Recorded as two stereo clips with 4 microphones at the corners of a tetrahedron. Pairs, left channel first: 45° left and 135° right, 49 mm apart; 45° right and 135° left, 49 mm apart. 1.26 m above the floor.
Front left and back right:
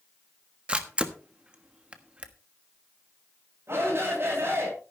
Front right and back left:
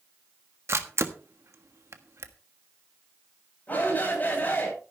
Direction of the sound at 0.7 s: 155° left.